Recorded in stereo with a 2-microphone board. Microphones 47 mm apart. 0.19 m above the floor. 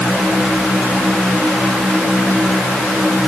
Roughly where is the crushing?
No crushing in this recording.